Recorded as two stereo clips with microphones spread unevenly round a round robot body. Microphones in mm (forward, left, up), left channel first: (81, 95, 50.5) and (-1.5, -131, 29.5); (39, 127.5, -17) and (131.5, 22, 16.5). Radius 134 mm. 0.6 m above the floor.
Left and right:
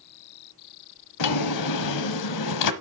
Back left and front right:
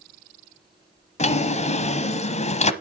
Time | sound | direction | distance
1.2 | a drawer | 85° left | 1.1 m